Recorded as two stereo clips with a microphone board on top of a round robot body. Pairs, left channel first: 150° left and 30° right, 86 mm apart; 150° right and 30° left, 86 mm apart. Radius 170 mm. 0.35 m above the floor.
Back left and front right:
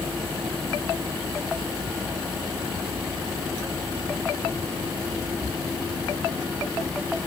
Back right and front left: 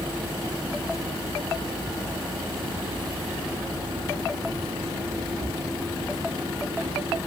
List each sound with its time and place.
Only background noise.